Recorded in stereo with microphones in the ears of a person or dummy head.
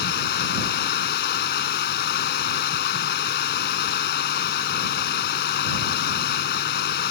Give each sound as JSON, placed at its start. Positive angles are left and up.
{"t": 0.0, "sound": "running water", "side_deg": 55}